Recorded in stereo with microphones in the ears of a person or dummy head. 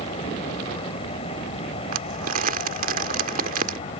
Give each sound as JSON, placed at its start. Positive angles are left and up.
{"t": 0.0, "sound": "an aircraft", "side_deg": 35}
{"t": 1.9, "sound": "crumpling", "side_deg": -55}